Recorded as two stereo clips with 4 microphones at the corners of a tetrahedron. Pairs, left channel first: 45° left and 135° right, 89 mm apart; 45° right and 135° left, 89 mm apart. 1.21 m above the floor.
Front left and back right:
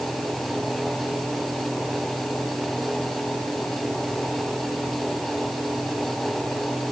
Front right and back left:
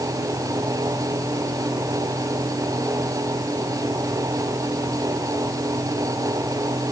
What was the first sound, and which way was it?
Only background noise.